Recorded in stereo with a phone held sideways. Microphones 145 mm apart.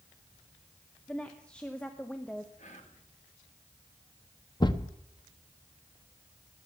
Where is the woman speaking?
5° left (ahead or behind), 0.9 m.